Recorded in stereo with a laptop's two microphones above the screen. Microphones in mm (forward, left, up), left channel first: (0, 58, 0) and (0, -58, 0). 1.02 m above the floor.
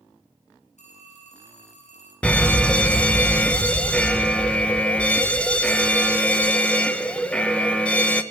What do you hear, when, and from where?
0.8 s a phone ringing: 85° left, 7.5 m
2.2 s a fire alarm: 10° left (ahead or behind), 1.5 m